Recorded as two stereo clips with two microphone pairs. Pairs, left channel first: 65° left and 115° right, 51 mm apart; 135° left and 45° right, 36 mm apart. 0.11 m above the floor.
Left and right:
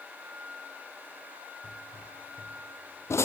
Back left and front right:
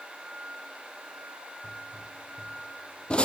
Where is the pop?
80° left, 0.9 m.